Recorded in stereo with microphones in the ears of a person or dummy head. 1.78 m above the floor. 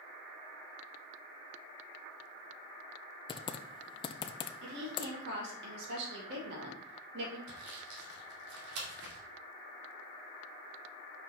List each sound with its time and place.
3.3 s typing on a keyboard: 25° left (ahead or behind), 0.6 m
4.6 s a woman speaking: 70° right (ahead or behind), 3 m
7.5 s sawing: 65° right (ahead or behind), 2.5 m